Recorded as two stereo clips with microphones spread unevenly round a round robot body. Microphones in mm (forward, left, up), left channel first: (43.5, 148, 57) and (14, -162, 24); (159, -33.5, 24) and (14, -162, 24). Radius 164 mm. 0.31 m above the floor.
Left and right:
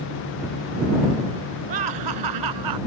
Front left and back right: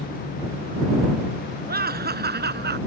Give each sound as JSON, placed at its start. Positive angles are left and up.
{"t": 1.7, "sound": "laughter", "azimuth_deg": -100}